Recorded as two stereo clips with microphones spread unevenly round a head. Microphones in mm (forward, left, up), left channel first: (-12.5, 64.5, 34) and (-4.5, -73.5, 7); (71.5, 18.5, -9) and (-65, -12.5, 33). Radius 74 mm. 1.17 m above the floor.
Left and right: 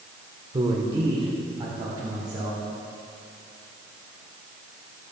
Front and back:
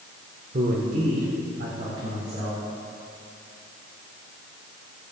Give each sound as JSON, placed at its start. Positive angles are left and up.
{"t": 0.5, "sound": "a man speaking", "azimuth_deg": -130, "distance_m": 1.1}